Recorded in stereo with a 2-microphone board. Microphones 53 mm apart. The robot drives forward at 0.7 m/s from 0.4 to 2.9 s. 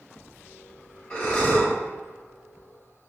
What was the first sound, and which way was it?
Breathing, 25° left (ahead or behind).